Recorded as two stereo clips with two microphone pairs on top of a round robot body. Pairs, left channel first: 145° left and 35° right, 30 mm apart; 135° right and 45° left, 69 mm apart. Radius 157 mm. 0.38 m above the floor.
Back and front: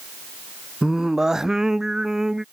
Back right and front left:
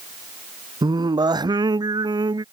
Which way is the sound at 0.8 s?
40° left.